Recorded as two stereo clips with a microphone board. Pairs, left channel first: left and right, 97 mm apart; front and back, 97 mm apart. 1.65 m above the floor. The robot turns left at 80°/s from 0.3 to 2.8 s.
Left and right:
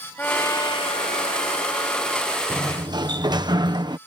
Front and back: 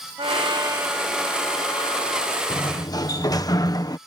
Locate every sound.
0.2 s a trumpet: 160° left; by 2.4 s 10° right
2.5 s a sliding door: 25° right; by 4.0 s 50° right